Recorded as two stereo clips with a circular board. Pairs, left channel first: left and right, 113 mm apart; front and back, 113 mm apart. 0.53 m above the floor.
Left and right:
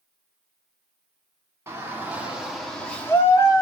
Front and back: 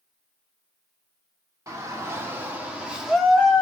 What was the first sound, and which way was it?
A shout, 140° right.